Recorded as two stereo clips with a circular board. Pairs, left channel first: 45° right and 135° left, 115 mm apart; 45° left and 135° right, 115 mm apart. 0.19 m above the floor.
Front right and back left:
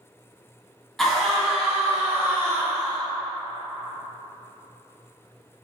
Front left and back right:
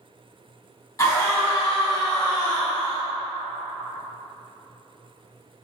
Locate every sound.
1.0 s a scream: 40° left, 1.4 m; by 3.0 s 80° left, 1.9 m